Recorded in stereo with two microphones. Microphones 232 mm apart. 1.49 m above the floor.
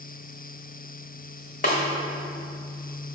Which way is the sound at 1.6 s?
35° left (ahead or behind).